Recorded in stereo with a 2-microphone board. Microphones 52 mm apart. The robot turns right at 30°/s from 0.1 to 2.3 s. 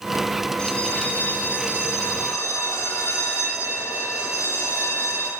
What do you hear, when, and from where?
0.6 s a bell: 20° left, 1.4 m; by 5.3 s 70° left, 1.4 m